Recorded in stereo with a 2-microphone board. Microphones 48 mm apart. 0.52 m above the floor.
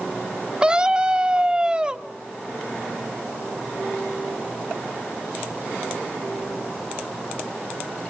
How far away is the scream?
About 0.7 m.